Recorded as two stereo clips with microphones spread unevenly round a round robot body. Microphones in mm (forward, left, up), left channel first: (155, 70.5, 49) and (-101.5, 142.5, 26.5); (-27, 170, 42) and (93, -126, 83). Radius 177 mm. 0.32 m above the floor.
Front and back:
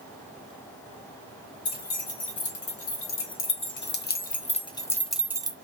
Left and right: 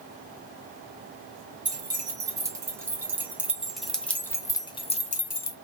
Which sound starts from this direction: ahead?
Keys jangling, at 1.6 s.